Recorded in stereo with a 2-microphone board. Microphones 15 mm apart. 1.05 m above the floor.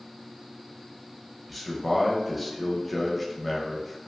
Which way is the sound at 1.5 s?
Centre (ahead or behind).